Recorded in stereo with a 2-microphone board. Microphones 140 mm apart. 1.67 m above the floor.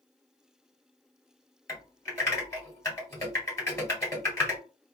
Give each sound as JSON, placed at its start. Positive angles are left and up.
{"t": 1.7, "sound": "typing on a keyboard", "side_deg": 20, "distance_m": 1.7}